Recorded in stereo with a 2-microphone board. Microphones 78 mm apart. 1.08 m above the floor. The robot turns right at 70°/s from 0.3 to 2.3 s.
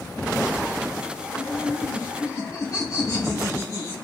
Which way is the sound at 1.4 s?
65° left.